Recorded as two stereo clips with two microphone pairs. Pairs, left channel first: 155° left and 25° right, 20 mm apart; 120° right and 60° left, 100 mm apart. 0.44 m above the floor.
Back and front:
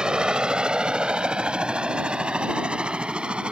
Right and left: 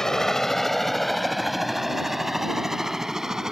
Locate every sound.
0.0 s a helicopter: 35° right; by 3.5 s 25° right